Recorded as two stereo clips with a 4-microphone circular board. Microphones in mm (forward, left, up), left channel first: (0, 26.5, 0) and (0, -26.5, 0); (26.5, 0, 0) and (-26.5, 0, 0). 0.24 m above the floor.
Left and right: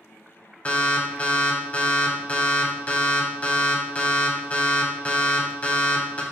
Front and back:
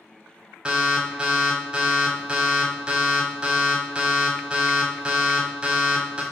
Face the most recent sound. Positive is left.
turn(degrees=125)